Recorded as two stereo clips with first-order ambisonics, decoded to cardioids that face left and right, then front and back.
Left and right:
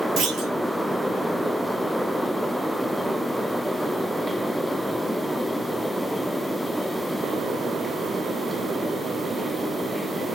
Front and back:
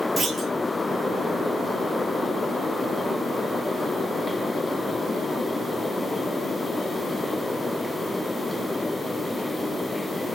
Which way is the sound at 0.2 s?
100° right.